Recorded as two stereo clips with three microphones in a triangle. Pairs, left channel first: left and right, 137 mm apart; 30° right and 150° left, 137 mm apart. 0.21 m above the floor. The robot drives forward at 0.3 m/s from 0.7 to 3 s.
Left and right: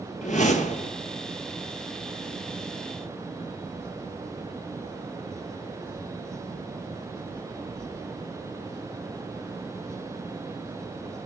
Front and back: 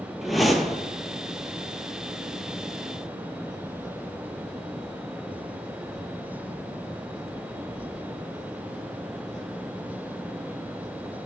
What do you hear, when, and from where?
0.2 s a whoosh: 60° left, 0.8 m; by 0.9 s 65° left, 0.8 m